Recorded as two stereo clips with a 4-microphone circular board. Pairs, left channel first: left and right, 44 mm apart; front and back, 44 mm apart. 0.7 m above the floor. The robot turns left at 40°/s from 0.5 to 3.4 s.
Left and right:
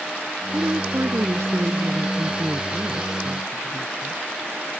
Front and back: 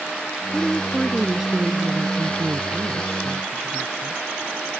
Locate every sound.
0.5 s a woman speaking: 70° right; by 4.2 s 175° left